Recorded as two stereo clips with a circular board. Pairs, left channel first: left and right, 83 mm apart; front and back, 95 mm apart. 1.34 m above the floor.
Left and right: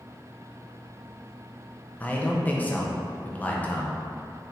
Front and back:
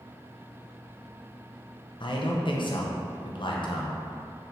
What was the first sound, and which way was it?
A man speaking, 20° left.